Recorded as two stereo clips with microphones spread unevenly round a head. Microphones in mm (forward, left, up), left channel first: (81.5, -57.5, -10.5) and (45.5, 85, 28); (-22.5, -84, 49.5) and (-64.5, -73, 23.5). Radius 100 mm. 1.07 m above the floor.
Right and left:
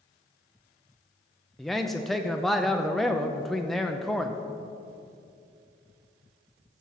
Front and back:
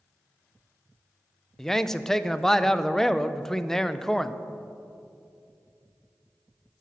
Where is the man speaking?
140° right, 0.5 m.